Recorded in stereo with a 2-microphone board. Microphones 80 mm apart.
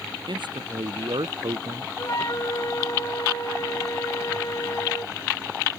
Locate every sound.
0.3 s a man speaking: 75° right (ahead or behind)
2.0 s a flute: 45° left (ahead or behind)